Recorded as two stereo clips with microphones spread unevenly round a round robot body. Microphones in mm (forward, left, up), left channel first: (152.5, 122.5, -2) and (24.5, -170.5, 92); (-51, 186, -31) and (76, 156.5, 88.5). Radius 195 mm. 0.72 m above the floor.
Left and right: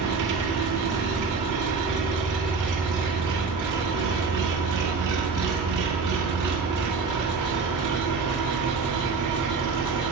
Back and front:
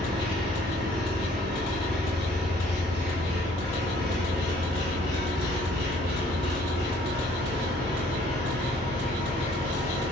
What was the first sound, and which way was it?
An engine running, 80° right.